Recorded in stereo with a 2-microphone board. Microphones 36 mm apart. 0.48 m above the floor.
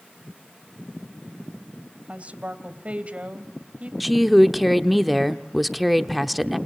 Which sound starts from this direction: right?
A woman speaking, at 2.1 s.